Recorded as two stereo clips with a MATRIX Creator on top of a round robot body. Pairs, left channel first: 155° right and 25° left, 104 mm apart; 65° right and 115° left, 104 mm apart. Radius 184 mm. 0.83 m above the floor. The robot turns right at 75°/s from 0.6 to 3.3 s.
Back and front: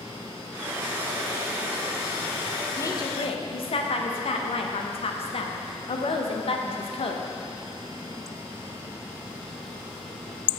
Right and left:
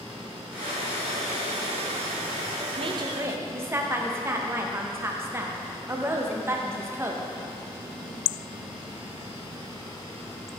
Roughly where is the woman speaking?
Behind left.